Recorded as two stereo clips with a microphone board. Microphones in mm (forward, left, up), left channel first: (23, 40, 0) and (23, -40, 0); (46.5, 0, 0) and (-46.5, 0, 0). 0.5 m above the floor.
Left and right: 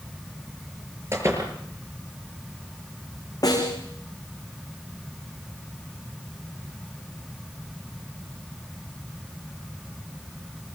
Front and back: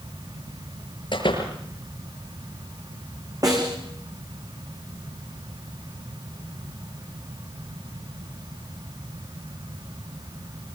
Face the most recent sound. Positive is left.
turn(degrees=130)